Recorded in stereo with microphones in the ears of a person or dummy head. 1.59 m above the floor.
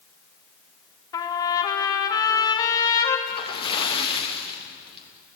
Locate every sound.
1.1 s a trumpet: 20° left (ahead or behind), 2.5 m
3.3 s a splash: 25° left (ahead or behind), 2.5 m